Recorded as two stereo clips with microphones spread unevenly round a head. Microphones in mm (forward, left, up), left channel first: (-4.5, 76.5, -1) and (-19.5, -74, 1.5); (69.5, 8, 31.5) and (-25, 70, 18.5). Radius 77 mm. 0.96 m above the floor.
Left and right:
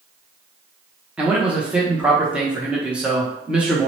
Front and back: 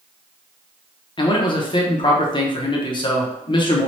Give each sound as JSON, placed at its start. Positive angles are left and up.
{"t": 1.2, "sound": "a man speaking", "azimuth_deg": -15, "distance_m": 0.7}